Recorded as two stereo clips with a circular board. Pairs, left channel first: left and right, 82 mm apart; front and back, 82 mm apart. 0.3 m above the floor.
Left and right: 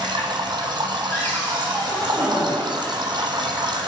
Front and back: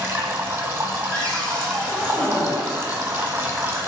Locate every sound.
0.0 s running water: 115° right, 0.9 m
1.1 s a cupboard door: 65° left, 1.2 m